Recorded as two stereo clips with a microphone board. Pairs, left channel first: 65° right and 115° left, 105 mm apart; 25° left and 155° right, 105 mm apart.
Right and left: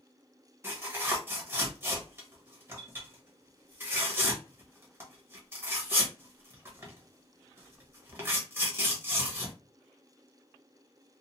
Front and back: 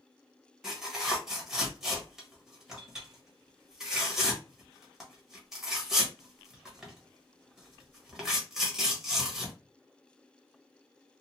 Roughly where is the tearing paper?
Behind left.